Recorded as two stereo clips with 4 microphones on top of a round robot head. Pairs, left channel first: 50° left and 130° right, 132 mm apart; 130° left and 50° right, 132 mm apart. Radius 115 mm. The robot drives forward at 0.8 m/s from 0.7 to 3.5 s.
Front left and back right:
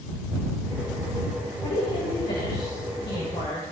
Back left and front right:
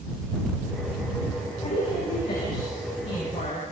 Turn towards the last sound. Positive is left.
turn(degrees=100)